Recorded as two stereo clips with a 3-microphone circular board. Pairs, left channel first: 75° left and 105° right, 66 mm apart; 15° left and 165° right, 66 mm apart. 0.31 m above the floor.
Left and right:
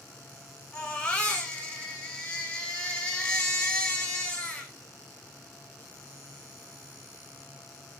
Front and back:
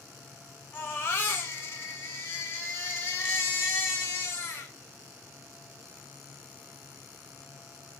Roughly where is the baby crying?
Ahead.